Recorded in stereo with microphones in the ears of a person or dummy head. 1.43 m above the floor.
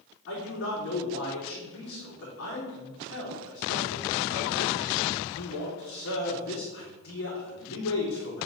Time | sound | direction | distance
0.3 | a man speaking | 65° left (ahead or behind) | 3 m